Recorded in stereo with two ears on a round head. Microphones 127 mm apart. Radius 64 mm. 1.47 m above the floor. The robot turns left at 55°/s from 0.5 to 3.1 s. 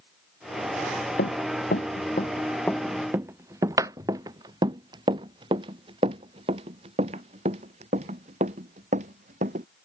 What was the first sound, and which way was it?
Running footsteps, 70° left (ahead or behind).